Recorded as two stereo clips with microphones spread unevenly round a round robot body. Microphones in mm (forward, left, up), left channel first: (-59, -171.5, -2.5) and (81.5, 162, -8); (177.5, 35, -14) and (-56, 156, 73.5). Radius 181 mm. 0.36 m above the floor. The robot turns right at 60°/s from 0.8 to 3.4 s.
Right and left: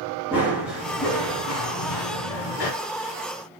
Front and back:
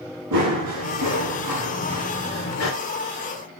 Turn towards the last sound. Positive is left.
turn(degrees=-40)